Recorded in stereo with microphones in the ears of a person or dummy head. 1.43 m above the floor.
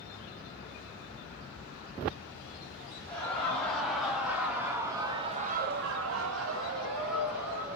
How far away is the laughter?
About 1.6 m.